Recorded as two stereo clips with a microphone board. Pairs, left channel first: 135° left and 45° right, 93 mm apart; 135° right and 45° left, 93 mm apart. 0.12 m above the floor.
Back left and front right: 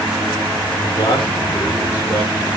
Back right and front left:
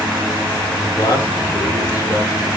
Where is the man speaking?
170° left, 4.5 m.